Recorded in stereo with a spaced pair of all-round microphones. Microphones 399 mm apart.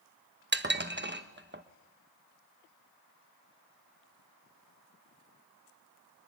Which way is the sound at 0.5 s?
30° right (ahead or behind).